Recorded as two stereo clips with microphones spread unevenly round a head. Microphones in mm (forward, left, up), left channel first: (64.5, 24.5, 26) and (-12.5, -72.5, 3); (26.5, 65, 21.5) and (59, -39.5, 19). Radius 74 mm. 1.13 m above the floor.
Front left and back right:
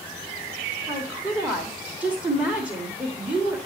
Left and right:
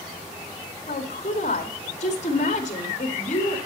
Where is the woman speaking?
150° left, 2 m.